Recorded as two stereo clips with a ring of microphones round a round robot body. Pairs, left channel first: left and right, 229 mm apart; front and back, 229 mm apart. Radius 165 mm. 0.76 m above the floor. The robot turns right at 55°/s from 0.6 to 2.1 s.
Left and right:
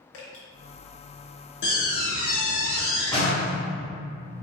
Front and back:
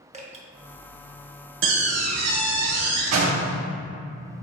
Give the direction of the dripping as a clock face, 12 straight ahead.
8 o'clock.